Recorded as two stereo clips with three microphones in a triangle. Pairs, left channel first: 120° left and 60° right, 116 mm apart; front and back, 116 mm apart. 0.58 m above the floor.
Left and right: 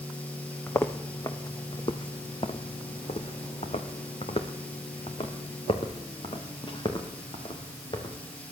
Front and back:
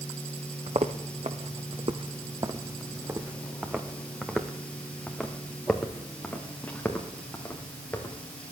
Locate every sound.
0.7 s footsteps: 175° right, 1.4 m; by 8.2 s 75° left, 3.5 m